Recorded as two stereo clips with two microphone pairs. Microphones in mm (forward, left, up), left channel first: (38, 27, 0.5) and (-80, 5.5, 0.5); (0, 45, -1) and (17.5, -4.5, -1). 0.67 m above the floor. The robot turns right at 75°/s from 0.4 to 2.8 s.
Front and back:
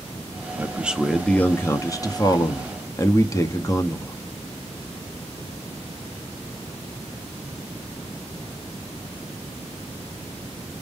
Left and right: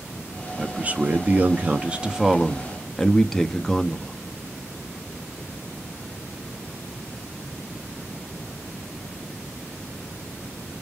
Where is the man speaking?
120° right, 0.6 m; by 4.2 s 45° left, 0.6 m.